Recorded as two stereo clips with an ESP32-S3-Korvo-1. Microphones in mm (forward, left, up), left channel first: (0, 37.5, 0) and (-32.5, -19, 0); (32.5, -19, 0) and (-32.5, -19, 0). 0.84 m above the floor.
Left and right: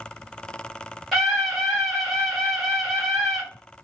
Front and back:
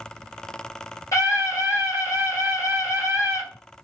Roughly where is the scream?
Ahead right.